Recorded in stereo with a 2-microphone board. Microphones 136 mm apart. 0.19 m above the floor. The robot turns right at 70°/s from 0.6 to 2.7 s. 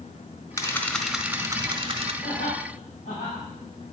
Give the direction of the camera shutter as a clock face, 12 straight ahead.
7 o'clock.